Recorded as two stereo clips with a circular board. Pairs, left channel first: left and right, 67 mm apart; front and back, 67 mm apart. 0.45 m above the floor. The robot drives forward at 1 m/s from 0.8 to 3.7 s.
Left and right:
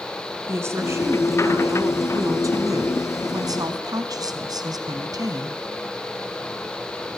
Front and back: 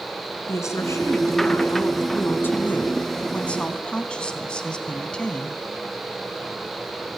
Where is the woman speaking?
40° right, 5 m; by 5.6 s 75° right, 3.5 m.